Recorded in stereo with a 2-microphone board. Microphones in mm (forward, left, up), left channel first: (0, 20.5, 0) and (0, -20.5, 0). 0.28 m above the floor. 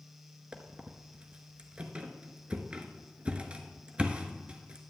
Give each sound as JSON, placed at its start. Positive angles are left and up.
{"t": 0.5, "sound": "a squeak", "side_deg": -30, "distance_m": 0.7}